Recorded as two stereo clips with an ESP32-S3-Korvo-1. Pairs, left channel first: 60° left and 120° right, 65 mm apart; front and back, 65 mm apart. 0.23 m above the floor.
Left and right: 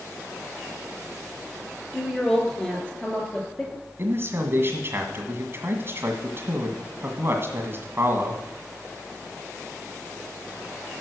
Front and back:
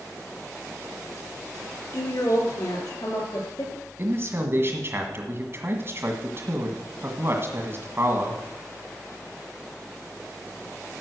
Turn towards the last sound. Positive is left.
turn(degrees=-150)